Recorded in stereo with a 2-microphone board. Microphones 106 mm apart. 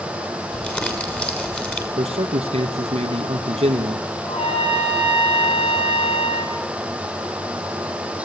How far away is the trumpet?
About 6 m.